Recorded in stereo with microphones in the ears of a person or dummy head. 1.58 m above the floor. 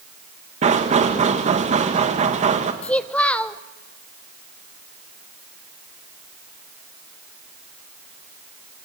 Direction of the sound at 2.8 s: 5° left (ahead or behind).